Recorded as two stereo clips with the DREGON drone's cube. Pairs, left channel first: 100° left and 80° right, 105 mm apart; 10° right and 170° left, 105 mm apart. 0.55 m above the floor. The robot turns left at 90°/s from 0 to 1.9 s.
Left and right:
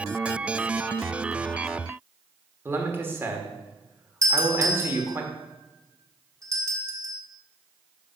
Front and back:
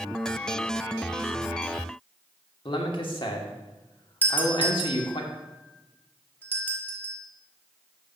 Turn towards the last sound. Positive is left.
turn(degrees=-70)